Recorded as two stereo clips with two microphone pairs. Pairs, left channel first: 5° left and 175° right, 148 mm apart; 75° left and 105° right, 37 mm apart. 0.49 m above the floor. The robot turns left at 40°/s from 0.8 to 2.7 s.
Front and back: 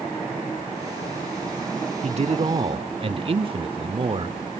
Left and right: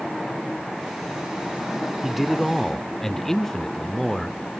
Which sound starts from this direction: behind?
A man speaking, at 2.0 s.